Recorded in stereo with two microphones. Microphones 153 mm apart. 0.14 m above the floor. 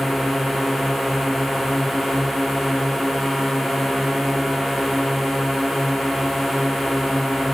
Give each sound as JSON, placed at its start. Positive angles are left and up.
{"t": 0.0, "sound": "a drone", "side_deg": 0}